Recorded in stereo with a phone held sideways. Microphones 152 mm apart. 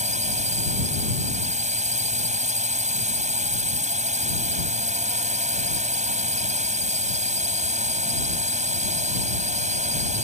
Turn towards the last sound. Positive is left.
turn(degrees=-50)  # may be behind; listen again after turning